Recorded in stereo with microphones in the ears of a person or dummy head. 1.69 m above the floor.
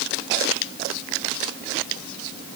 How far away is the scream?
I don't hear a scream.